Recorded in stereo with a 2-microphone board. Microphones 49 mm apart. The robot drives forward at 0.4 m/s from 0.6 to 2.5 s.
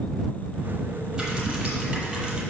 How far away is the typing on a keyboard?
About 2.5 m.